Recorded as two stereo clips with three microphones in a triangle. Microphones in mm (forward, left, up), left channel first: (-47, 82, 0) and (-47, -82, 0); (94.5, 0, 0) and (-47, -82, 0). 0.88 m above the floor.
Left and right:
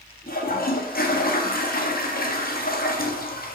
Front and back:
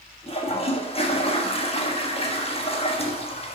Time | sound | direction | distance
0.3 | a toilet flushing | 80° left | 1.4 m